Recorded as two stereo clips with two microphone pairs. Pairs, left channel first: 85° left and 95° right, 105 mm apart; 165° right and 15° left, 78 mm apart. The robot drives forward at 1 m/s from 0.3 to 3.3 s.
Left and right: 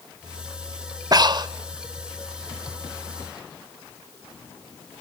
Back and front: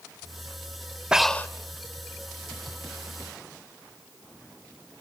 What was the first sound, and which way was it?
Breathing, 65° right.